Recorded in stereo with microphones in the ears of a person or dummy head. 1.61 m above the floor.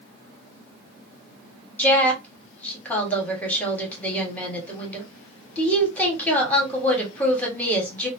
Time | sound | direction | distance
1.8 | a woman speaking | 5° left (ahead or behind) | 1.4 m